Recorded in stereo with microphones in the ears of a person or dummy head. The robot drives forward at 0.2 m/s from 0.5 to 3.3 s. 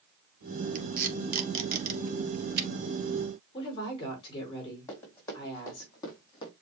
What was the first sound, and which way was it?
Tape being pulled, 45° right (ahead or behind).